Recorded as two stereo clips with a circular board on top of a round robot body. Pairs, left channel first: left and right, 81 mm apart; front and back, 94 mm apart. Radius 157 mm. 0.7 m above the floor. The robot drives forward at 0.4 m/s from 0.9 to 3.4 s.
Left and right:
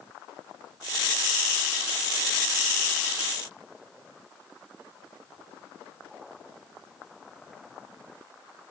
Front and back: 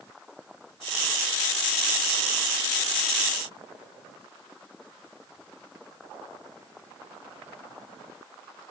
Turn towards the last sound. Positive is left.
No sound to turn to.